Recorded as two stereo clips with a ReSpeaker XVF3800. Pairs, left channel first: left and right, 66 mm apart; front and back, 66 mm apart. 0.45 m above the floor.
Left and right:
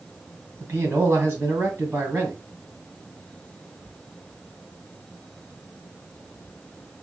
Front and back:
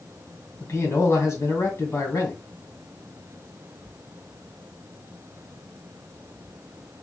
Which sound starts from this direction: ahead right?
A man speaking, at 0.6 s.